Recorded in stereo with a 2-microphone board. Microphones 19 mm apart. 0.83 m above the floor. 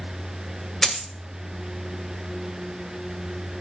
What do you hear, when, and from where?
0.8 s a dropped coin: 20° left (ahead or behind), 1.9 m